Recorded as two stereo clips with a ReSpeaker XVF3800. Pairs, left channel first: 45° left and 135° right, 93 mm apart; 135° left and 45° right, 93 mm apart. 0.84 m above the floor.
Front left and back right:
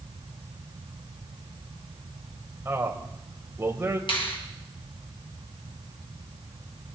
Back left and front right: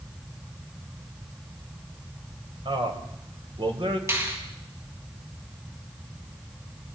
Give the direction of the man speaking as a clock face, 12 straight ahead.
2 o'clock.